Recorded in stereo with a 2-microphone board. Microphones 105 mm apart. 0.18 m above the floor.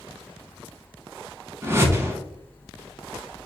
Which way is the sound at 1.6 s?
25° right (ahead or behind).